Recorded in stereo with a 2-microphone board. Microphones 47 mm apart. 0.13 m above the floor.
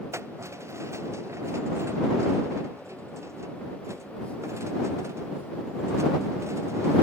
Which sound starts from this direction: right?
Keys jangling, at 0.1 s.